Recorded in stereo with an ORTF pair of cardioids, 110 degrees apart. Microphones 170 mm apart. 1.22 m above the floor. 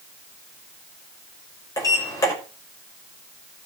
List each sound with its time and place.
1.8 s a sliding door: 20° left, 6 m